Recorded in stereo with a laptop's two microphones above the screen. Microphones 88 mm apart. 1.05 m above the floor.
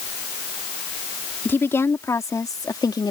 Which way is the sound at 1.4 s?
25° left (ahead or behind).